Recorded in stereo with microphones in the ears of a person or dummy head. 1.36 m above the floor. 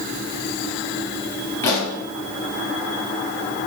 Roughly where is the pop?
Centre.